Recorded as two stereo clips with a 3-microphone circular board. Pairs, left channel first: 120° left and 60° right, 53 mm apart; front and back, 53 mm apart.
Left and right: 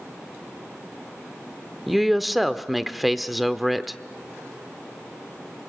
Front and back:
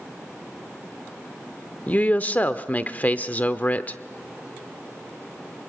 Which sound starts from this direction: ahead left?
A woman speaking, at 1.9 s.